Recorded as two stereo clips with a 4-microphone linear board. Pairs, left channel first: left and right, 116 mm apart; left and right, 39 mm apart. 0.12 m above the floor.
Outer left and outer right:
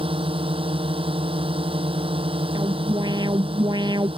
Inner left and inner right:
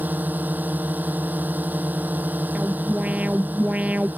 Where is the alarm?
40° right (ahead or behind).